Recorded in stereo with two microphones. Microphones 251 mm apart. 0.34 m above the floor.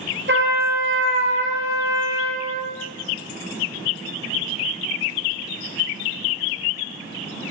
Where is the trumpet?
50° right (ahead or behind), 2.5 m.